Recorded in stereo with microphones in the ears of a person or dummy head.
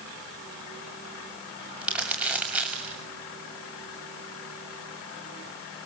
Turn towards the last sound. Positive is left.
turn(degrees=-5)  # may be behind; listen again after turning